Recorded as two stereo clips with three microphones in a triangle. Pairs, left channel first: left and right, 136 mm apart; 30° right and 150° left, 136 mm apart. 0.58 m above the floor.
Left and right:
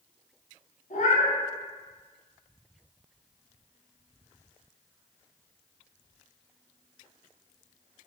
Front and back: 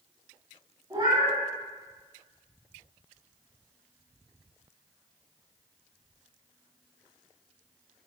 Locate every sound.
0.9 s a cat meowing: 90° left, 1.6 m